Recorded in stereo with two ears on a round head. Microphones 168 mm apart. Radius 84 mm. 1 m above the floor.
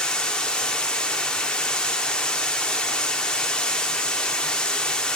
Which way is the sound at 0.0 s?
5° left (ahead or behind).